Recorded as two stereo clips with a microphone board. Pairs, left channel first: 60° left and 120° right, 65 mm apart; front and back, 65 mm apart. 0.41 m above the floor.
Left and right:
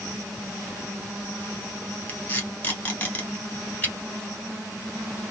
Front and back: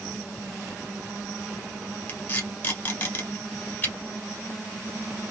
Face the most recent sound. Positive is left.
turn(degrees=20)